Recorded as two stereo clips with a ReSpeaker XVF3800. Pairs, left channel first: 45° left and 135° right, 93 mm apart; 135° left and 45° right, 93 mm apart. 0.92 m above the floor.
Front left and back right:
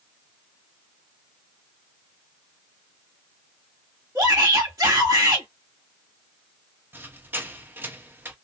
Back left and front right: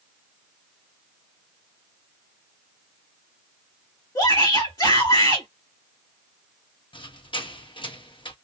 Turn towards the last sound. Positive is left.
turn(degrees=160)